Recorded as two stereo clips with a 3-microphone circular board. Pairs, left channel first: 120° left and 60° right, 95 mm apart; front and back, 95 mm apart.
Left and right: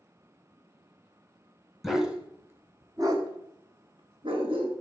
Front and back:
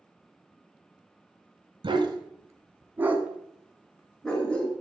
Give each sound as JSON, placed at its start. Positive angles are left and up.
{"t": 1.8, "sound": "a dog barking", "azimuth_deg": -150, "distance_m": 1.3}